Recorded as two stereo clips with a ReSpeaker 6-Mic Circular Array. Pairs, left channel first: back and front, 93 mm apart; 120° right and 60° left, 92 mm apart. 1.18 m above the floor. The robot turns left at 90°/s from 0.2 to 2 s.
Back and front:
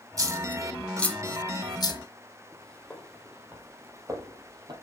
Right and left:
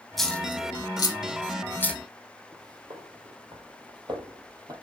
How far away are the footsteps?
About 2.5 m.